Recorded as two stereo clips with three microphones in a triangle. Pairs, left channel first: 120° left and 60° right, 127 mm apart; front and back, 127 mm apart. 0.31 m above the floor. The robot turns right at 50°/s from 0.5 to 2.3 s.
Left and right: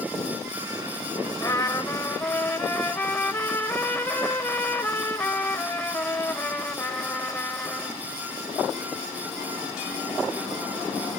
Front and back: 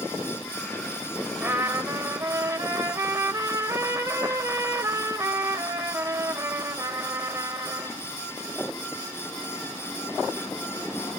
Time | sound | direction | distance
1.4 | a trumpet | 125° left | 1.0 m